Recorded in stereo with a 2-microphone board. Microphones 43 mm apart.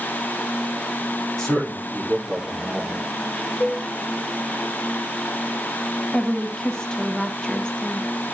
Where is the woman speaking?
20° left (ahead or behind), 1.6 m.